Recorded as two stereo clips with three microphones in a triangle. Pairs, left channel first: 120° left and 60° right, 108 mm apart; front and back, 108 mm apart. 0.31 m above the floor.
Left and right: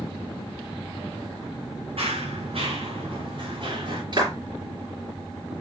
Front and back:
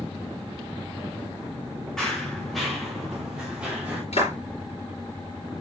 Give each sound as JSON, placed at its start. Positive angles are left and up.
{"t": 2.0, "sound": "running footsteps", "azimuth_deg": -85, "distance_m": 4.0}
{"t": 4.1, "sound": "a clap", "azimuth_deg": -15, "distance_m": 5.0}